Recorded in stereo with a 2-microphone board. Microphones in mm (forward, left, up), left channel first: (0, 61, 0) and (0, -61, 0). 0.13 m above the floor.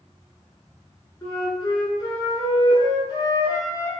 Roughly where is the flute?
Left.